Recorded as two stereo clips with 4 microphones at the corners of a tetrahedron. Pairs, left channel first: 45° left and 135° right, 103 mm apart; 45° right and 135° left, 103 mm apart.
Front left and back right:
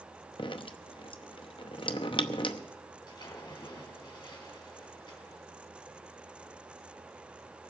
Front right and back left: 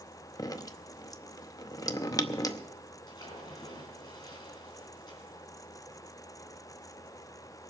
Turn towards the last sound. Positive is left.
turn(degrees=0)